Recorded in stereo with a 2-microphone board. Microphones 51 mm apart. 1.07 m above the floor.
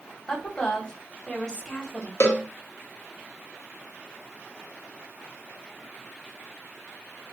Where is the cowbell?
55° left (ahead or behind), 0.8 m.